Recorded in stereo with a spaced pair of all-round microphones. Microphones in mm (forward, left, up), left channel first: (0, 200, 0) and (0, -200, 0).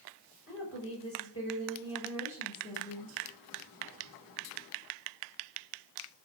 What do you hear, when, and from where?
0.5 s a woman speaking: 35° left (ahead or behind), 5.5 m